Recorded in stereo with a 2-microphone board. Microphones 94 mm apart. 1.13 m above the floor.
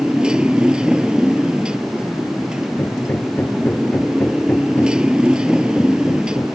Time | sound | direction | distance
0.0 | a motorcycle | 10° right (ahead or behind) | ?
2.8 | hammering | 20° left (ahead or behind) | ?